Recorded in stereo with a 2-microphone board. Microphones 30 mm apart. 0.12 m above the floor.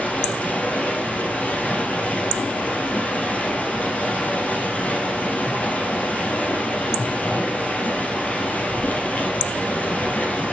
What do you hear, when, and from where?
0.0 s running water: 50° left (ahead or behind), 2 m